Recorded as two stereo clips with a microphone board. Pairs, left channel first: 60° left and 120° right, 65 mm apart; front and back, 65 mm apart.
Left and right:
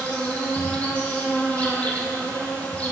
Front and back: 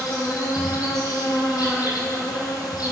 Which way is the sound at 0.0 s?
10° right.